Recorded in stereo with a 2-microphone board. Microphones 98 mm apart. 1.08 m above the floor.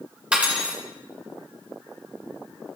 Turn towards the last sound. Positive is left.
turn(degrees=-10)  # may be behind; listen again after turning